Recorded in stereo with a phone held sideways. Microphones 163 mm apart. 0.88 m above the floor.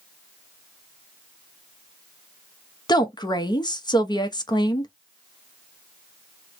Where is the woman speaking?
25° left (ahead or behind), 0.8 m.